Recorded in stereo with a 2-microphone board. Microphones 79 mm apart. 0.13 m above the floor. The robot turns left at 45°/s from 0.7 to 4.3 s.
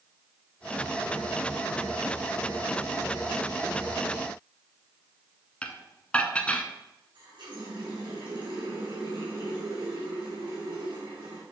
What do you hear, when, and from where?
5.6 s dishes clattering: 15° left (ahead or behind), 0.7 m
7.2 s a running tap: 75° right (ahead or behind), 4 m